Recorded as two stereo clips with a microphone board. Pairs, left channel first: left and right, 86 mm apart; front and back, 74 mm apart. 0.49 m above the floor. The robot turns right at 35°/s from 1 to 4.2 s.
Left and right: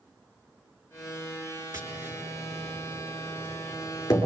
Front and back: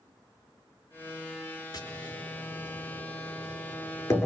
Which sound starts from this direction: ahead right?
Tapping, at 1.7 s.